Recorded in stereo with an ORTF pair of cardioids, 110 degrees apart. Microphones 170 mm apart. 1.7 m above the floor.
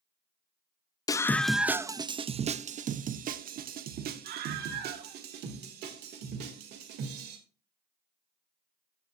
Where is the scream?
20° left, 0.6 m; by 7.4 s 75° right, 3.5 m.